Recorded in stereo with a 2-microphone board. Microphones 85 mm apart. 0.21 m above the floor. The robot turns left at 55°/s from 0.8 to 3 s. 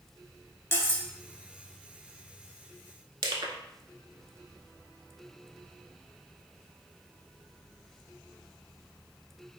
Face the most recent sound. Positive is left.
turn(degrees=-60)  # may be behind; listen again after turning